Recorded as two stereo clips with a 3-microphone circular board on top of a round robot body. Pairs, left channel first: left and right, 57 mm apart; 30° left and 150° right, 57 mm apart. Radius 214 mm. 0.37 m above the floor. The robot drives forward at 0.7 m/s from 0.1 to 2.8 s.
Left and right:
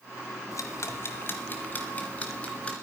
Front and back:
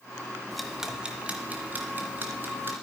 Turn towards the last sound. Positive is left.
turn(degrees=160)